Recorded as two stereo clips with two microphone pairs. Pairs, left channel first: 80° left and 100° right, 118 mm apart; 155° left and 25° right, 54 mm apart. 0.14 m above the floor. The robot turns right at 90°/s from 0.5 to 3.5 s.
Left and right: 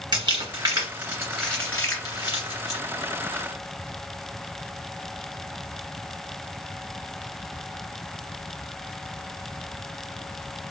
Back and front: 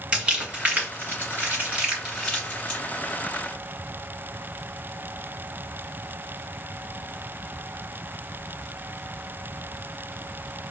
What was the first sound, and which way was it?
Crumpling, 85° right.